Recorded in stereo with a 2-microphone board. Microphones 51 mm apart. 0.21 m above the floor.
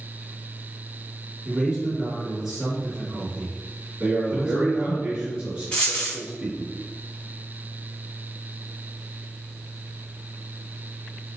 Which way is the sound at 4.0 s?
10° right (ahead or behind).